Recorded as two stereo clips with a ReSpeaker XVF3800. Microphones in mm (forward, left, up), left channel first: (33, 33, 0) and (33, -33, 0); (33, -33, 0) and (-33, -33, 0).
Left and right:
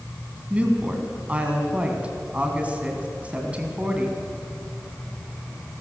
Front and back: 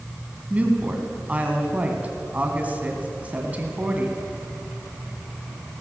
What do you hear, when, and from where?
0.5 s a woman speaking: 140° right, 1.8 m